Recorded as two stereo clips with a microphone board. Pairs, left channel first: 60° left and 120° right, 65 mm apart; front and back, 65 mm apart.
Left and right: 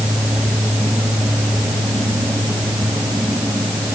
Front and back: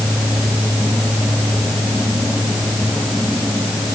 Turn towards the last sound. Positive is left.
No sound to turn to.